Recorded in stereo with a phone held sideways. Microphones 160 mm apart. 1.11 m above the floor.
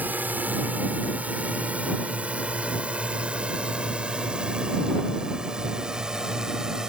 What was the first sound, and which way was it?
A drone, 10° right (ahead or behind).